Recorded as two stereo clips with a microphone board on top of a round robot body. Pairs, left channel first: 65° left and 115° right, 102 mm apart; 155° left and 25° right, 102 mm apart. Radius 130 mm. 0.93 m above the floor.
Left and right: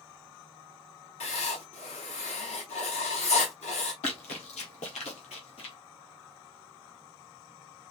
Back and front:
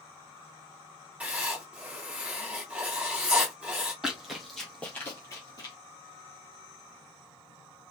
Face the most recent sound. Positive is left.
turn(degrees=105)